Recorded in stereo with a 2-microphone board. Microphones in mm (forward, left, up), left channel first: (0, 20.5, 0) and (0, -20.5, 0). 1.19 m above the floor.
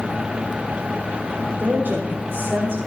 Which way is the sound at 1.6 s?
55° right (ahead or behind).